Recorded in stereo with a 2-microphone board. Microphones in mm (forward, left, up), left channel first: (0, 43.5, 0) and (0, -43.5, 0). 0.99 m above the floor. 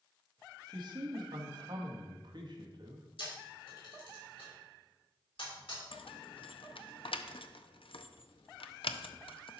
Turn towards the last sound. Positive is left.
turn(degrees=85)